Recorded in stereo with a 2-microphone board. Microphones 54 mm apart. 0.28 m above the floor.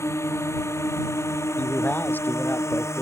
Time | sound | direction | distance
0.0 | a drone | 60° left (ahead or behind) | ?
1.6 | a man speaking | 40° left (ahead or behind) | ?